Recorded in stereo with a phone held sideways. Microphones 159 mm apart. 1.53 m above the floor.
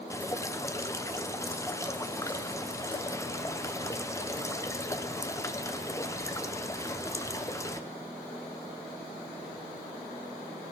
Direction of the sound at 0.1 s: 20° left (ahead or behind).